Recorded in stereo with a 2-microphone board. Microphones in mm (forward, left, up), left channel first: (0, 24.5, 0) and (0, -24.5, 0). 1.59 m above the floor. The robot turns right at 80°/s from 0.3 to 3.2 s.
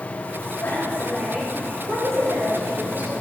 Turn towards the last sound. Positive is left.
turn(degrees=-20)